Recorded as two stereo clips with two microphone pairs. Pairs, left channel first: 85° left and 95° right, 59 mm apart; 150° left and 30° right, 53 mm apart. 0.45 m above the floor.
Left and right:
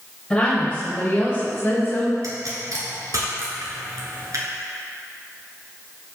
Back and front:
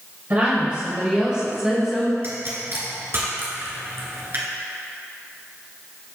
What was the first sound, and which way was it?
A woman speaking, 5° left.